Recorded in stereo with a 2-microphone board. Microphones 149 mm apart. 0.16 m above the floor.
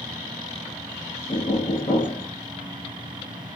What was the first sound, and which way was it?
Knocking, 60° left (ahead or behind).